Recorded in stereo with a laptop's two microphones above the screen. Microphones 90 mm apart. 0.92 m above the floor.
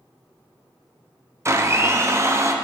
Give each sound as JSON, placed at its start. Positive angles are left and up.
{"t": 1.4, "sound": "a blender", "side_deg": -30, "distance_m": 0.8}